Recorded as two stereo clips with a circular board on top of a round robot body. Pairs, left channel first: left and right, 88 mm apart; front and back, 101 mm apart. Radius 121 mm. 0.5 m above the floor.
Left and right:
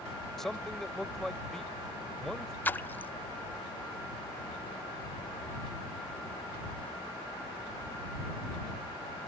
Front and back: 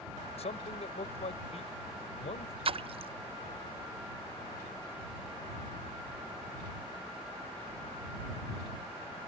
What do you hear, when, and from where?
0.4 s a man speaking: 5° left
2.6 s a splash: 160° left